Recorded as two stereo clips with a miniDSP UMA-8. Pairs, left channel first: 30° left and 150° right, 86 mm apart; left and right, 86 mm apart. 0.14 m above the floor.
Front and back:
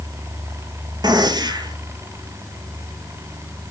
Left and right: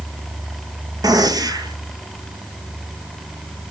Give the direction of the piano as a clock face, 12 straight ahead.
I don't hear a piano.